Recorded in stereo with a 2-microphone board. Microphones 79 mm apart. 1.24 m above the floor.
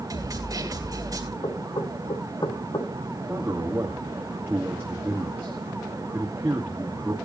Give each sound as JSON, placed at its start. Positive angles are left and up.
{"t": 0.1, "sound": "a snare drum", "side_deg": -50, "distance_m": 3.0}
{"t": 1.4, "sound": "knocking", "side_deg": 65, "distance_m": 1.3}
{"t": 3.3, "sound": "a man speaking", "side_deg": -30, "distance_m": 2.5}